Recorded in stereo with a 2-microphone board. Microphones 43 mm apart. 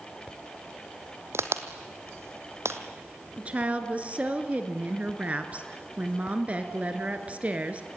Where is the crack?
75° right (ahead or behind), 1.4 m.